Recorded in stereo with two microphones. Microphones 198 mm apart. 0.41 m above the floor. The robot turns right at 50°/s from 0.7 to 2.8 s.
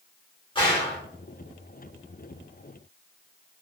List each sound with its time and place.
0.6 s a gunshot: 25° left (ahead or behind), 1.3 m; by 1.0 s 35° left (ahead or behind), 1.3 m